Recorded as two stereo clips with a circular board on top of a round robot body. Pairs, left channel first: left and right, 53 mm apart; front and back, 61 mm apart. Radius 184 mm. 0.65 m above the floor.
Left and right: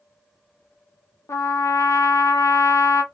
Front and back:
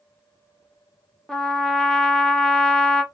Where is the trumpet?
80° left, 0.8 m.